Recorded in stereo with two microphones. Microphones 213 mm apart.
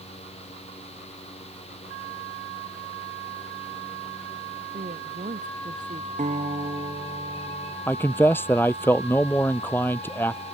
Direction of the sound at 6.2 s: 35° right (ahead or behind).